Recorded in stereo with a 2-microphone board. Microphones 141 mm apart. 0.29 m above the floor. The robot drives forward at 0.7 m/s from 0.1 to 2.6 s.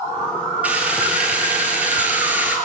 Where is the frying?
10° right (ahead or behind), 7 m.